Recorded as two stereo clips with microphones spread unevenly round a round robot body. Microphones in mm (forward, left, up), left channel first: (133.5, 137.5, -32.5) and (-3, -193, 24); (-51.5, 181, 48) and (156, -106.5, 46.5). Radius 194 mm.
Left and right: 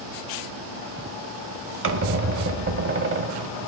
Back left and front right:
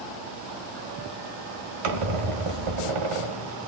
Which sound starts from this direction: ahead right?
A squeak, at 1.8 s.